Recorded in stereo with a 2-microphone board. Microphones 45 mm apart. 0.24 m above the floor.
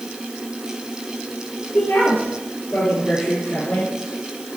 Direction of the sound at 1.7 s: 55° left (ahead or behind).